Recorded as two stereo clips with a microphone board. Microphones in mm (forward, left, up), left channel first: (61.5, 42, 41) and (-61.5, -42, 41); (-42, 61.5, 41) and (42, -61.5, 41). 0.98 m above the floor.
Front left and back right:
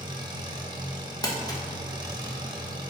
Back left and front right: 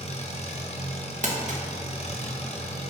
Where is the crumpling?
30° right, 1.0 m.